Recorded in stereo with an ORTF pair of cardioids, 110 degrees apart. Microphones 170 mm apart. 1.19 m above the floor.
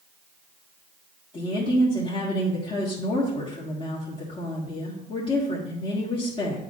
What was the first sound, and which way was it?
A woman speaking, 35° left.